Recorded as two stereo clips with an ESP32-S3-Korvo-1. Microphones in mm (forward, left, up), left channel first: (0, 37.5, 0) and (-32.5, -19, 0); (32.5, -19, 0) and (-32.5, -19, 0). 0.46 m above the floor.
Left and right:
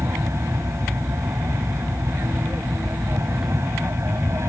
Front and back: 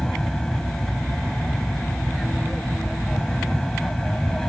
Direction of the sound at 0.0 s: 80° right.